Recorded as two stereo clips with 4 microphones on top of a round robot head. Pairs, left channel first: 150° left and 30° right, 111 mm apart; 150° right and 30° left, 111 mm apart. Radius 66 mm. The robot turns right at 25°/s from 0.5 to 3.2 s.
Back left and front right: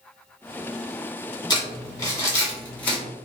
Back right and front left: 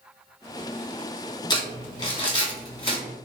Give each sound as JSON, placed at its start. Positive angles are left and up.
{"t": 1.5, "sound": "crumpling", "azimuth_deg": 180, "distance_m": 1.6}